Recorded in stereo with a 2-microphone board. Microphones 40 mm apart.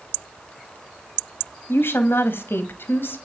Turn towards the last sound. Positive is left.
turn(degrees=65)  # may be behind; listen again after turning